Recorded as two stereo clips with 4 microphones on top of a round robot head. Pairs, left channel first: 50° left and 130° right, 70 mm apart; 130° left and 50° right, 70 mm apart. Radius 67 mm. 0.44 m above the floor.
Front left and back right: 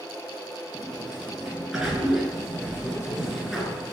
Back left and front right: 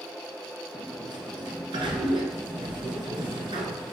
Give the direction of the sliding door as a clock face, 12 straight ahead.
2 o'clock.